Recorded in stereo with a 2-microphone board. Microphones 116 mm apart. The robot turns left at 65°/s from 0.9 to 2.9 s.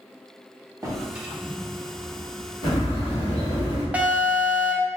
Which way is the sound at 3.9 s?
10° right (ahead or behind).